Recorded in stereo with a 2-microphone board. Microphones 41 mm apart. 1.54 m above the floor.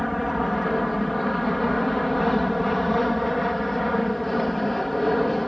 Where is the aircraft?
Centre (ahead or behind).